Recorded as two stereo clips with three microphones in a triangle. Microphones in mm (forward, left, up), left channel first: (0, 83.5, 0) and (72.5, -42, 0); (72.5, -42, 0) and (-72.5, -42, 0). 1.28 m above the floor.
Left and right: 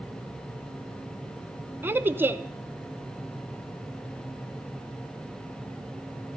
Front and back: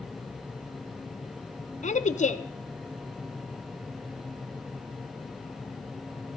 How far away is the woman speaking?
About 0.6 m.